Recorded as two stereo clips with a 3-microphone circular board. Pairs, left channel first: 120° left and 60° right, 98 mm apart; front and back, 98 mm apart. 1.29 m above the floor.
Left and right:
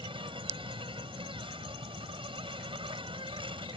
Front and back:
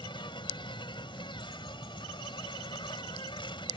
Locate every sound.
0.0 s an insect: 35° right